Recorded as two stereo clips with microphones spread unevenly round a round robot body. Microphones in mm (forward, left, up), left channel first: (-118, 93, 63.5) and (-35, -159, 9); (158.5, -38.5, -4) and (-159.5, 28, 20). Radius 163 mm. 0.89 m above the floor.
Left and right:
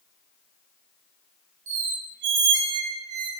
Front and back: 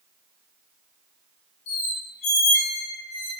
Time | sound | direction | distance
1.7 | a squeak | 65° right | 1.7 m